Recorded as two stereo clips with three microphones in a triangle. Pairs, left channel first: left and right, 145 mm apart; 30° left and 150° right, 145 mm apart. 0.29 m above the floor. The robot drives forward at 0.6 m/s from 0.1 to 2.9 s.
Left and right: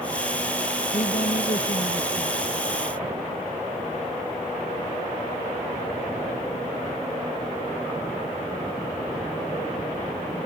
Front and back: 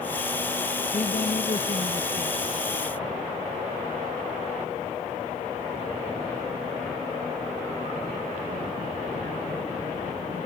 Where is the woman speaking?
60° left; by 2.4 s 65° left.